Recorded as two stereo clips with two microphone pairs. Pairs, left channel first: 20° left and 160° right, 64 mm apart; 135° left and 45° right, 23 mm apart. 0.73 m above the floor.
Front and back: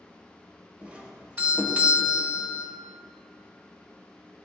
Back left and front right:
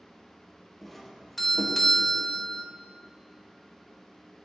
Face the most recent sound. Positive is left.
turn(degrees=-160)